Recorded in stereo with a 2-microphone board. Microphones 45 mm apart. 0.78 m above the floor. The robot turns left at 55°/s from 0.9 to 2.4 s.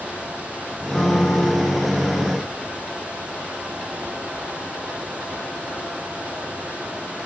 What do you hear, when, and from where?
0.9 s a piano: 165° left, 3.5 m; by 1.8 s 120° left, 3.5 m